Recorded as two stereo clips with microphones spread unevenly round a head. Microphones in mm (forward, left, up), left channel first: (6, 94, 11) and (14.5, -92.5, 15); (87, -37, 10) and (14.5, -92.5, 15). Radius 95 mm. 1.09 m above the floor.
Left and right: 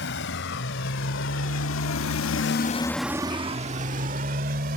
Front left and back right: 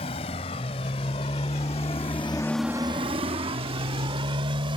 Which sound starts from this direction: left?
A motorcycle, at 0.0 s.